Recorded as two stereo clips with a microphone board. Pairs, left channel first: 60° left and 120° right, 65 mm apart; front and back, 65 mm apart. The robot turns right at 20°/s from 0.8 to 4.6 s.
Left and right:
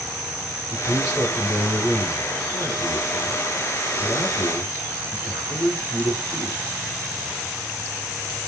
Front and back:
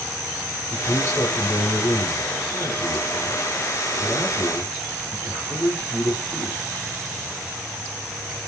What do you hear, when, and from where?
0.7 s a man speaking: 25° right, 4 m; by 6.6 s 50° left, 4 m